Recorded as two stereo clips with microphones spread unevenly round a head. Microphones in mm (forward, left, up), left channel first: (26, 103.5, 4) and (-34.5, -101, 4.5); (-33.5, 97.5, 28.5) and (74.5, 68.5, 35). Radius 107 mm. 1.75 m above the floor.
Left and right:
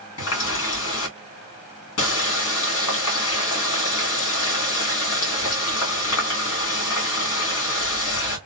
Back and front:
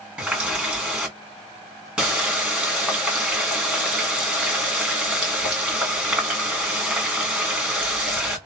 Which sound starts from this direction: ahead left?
A running tap, at 0.2 s.